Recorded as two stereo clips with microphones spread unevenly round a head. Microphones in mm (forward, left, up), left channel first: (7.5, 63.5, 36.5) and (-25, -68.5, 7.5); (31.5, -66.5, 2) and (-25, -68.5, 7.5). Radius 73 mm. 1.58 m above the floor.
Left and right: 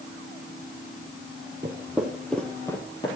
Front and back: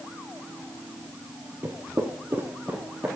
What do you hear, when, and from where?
1.6 s footsteps: 175° right, 2.0 m; by 3.1 s 115° left, 2.5 m